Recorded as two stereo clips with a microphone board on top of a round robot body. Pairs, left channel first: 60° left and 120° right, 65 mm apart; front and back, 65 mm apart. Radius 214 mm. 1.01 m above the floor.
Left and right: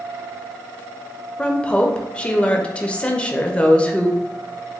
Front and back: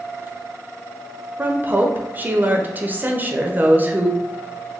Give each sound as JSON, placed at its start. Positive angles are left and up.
{"t": 1.4, "sound": "a woman speaking", "azimuth_deg": 130, "distance_m": 0.6}